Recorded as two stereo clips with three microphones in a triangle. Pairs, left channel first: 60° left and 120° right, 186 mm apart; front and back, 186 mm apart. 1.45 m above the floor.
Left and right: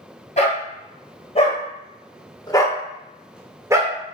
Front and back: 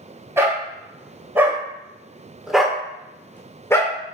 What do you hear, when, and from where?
0.4 s a dog barking: 105° left, 2.5 m; by 4.0 s 65° right, 1.3 m